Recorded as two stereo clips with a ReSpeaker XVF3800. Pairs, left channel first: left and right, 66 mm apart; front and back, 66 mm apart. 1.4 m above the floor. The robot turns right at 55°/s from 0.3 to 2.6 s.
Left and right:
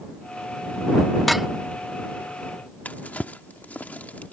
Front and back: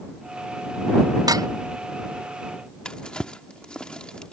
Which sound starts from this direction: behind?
Dishes clattering, at 1.3 s.